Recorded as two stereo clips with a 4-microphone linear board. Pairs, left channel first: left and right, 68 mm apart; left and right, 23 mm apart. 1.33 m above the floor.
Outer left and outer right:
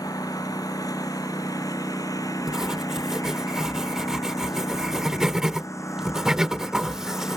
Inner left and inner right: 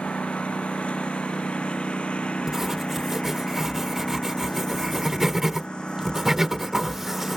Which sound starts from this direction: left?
A lawn mower, at 0.0 s.